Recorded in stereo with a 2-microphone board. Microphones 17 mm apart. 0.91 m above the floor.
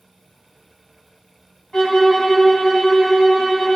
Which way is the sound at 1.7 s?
45° left (ahead or behind).